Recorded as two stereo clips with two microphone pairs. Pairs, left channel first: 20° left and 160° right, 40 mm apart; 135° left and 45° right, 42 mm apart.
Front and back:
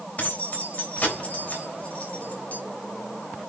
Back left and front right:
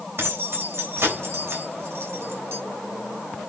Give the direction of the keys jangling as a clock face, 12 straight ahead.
1 o'clock.